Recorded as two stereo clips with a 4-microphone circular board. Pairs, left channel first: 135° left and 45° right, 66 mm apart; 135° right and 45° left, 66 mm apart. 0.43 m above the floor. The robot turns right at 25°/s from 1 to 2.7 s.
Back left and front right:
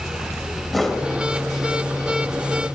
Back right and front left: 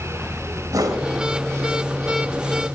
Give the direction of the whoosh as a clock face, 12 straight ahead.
10 o'clock.